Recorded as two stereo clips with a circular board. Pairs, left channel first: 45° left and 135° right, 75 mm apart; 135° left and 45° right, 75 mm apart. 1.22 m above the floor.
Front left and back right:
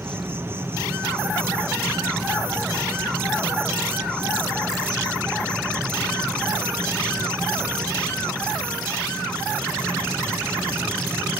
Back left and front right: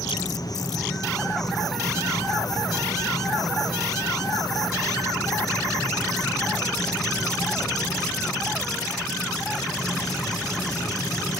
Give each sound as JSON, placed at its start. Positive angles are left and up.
{"t": 0.0, "sound": "an insect", "azimuth_deg": 165, "distance_m": 1.2}